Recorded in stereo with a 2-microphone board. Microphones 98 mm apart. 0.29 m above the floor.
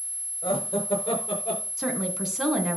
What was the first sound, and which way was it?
Laughter, 65° left (ahead or behind).